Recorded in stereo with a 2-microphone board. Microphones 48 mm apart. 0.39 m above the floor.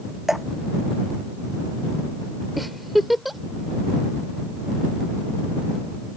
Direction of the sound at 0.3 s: 10° right (ahead or behind).